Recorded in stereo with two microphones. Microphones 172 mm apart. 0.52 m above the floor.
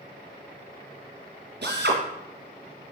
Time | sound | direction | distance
1.6 | a drill | 85° right | 3 m